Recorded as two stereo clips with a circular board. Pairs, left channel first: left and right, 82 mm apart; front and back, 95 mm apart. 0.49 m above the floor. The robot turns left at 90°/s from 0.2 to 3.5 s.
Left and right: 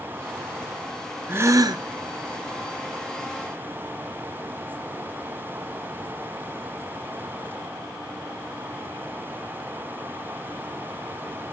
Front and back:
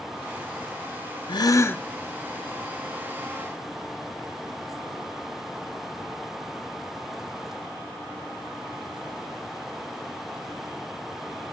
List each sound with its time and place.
1.3 s a gasp: 25° right, 0.6 m; by 1.8 s 75° right, 0.6 m